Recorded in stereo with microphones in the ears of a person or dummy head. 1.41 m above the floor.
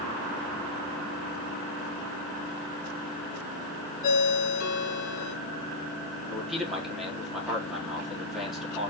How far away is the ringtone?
About 3 m.